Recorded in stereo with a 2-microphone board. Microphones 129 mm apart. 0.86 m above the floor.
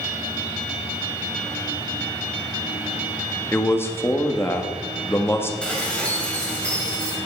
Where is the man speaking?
20° left (ahead or behind), 1.5 m.